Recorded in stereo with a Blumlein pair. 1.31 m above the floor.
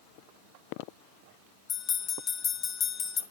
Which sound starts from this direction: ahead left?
A bell, at 1.7 s.